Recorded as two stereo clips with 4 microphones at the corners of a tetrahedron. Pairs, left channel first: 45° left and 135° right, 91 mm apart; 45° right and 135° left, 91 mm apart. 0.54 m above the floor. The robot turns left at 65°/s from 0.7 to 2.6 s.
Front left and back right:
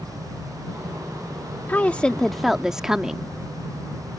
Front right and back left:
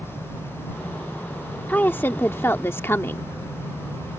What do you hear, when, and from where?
1.7 s a woman speaking: straight ahead; by 3.3 s 60° right